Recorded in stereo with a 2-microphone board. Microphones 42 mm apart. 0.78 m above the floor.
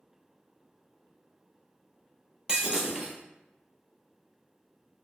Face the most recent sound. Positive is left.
turn(degrees=-20)  # may be behind; listen again after turning